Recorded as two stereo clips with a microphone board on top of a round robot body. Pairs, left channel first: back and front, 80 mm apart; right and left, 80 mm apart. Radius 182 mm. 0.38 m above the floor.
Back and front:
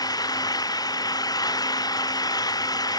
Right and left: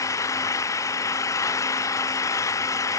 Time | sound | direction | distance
0.0 | an engine running | 140° right | ?